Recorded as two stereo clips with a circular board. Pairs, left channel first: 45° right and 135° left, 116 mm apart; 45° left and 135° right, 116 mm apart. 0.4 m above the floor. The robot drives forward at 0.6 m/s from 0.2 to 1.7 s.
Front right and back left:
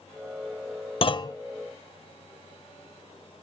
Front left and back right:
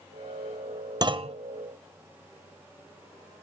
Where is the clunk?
80° right, 0.5 m; by 1.4 s 105° right, 0.5 m.